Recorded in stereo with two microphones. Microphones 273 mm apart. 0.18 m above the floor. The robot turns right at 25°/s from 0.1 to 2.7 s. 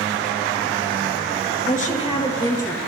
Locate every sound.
1.6 s a woman speaking: 35° left (ahead or behind), 3 m; by 2.8 s 10° left (ahead or behind), 3 m